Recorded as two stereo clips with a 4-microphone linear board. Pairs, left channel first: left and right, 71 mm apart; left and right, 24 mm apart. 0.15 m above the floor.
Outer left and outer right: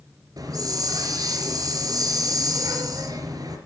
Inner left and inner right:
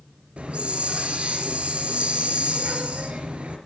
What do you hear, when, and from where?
0.4 s a hiss: 60° right (ahead or behind), 3 m